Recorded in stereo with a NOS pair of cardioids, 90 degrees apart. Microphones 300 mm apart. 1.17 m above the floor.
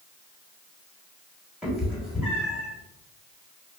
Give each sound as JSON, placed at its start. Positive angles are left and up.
{"t": 1.6, "sound": "a cat meowing", "azimuth_deg": 0, "distance_m": 1.3}